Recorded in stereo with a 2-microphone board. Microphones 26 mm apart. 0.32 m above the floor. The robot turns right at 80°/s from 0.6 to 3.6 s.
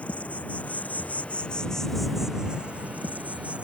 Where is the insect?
65° left; by 3.6 s 55° right.